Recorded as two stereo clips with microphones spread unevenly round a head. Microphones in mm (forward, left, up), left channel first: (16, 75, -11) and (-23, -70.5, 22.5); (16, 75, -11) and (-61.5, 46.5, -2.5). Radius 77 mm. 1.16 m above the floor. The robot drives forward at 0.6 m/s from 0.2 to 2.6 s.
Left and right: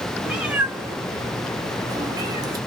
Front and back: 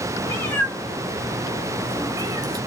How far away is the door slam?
I don't hear a door slam.